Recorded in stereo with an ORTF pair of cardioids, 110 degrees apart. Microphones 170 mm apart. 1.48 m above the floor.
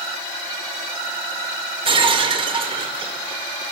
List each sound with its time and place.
1.9 s breaking glass: 35° right, 2.5 m